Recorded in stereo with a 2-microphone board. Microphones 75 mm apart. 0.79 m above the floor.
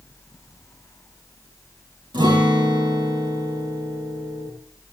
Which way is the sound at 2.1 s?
90° right.